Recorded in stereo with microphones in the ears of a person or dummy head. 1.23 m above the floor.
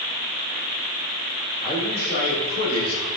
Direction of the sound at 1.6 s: 45° left (ahead or behind).